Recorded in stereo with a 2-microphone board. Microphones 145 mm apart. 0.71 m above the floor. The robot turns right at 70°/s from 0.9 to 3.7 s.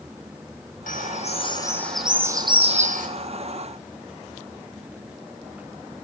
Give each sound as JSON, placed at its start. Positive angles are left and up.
{"t": 0.9, "sound": "a bird", "azimuth_deg": 105, "distance_m": 3.0}